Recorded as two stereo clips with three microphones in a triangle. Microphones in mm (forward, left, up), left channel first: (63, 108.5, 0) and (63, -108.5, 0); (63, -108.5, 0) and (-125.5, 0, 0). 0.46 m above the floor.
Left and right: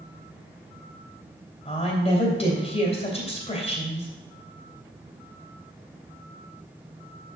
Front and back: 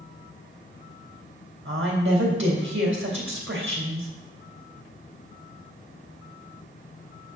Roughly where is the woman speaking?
Behind left.